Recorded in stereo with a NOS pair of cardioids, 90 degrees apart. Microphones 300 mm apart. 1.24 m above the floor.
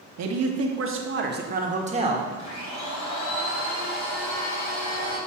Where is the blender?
60° left, 2.5 m.